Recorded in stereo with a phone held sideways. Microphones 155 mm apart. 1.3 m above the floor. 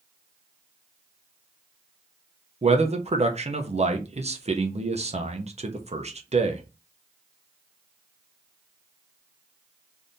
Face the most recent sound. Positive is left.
turn(degrees=-45)  # may be behind; listen again after turning